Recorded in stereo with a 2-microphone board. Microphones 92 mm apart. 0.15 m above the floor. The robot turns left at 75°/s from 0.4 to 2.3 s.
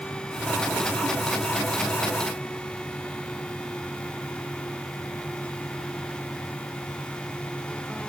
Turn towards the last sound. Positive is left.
No sound to turn to.